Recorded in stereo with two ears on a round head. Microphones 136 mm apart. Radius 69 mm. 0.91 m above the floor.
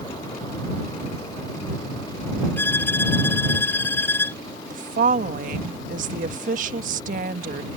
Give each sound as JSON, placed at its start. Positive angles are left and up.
{"t": 2.6, "sound": "a violin", "side_deg": 15}
{"t": 4.7, "sound": "a woman speaking", "side_deg": -55}